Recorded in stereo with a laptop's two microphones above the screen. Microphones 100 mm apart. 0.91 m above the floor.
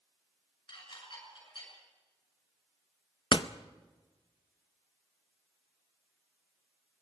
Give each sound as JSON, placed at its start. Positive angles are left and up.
{"t": 0.7, "sound": "dishes clattering", "side_deg": 55, "distance_m": 6.5}
{"t": 3.3, "sound": "a door slam", "side_deg": 50, "distance_m": 0.6}